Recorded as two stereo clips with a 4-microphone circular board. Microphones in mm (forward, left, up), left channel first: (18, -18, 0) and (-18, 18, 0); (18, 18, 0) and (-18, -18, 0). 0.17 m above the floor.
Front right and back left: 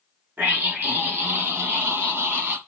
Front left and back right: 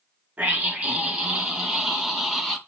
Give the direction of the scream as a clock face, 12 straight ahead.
6 o'clock.